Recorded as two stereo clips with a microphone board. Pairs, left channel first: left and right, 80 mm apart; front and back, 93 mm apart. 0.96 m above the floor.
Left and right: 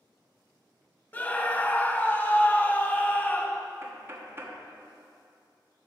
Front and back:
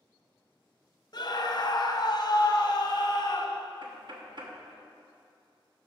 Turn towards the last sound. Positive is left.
turn(degrees=-150)